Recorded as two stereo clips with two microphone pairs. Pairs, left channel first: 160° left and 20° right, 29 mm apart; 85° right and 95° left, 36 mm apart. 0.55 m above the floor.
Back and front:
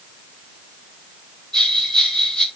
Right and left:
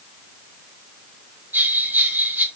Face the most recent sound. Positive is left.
turn(degrees=90)